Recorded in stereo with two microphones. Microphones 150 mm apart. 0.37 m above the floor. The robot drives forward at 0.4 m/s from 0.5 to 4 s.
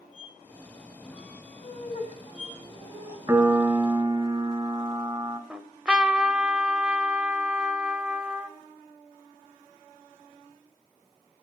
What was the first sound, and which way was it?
A squeak, 35° left (ahead or behind).